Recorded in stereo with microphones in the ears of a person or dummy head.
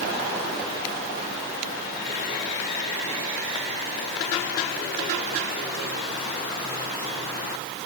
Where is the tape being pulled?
I don't hear tape being pulled.